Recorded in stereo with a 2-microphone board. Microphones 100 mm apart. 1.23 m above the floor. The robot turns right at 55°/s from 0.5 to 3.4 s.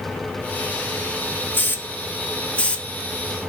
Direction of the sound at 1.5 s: 20° left (ahead or behind).